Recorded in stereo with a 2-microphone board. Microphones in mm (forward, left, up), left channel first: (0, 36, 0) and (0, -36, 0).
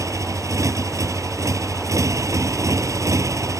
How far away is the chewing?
No chewing in this recording.